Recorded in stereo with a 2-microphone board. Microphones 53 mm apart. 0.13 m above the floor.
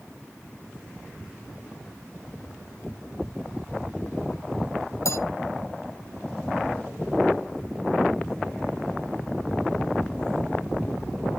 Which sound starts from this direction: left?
A bell, at 5.0 s.